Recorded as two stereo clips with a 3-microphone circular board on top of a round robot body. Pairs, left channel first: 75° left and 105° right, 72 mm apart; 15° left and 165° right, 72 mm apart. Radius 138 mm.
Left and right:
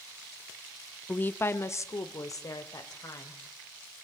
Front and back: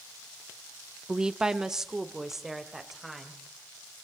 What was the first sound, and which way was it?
A woman speaking, 130° left.